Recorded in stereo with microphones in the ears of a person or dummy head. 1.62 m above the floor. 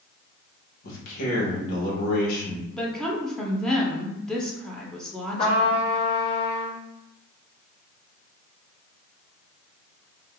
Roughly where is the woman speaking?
Centre.